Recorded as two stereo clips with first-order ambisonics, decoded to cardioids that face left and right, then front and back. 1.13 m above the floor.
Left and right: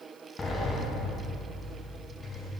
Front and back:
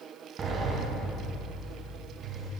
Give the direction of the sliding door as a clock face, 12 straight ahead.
7 o'clock.